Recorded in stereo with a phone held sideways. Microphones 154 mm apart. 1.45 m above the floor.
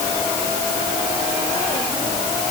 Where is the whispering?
No whispering in this recording.